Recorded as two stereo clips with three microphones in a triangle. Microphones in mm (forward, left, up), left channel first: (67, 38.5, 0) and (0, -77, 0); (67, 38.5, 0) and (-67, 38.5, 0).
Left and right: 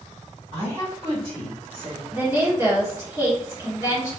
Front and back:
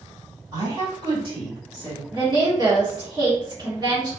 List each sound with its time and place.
0.5 s a woman speaking: 135° right, 1.9 m; by 2.0 s 155° right, 2.5 m
2.1 s a woman speaking: 170° right, 1.4 m